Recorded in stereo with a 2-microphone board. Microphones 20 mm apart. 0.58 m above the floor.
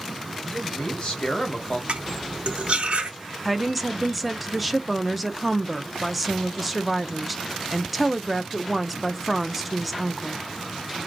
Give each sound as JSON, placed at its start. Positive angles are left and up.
{"t": 0.5, "sound": "a man speaking", "side_deg": 50, "distance_m": 3.0}
{"t": 1.9, "sound": "cutlery clinking", "side_deg": -70, "distance_m": 1.0}
{"t": 3.5, "sound": "a woman speaking", "side_deg": -10, "distance_m": 0.6}